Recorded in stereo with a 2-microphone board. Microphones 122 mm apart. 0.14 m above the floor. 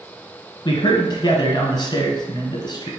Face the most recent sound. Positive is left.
turn(degrees=40)  # may be behind; listen again after turning